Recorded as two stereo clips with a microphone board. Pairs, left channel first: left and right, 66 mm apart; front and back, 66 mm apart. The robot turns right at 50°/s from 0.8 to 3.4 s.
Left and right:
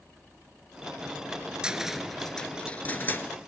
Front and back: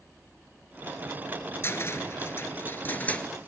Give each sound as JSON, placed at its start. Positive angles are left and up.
{"t": 1.6, "sound": "a cupboard door", "azimuth_deg": -20, "distance_m": 0.7}